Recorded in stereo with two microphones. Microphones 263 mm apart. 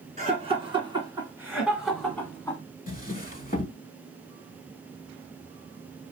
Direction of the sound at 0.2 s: 25° right (ahead or behind).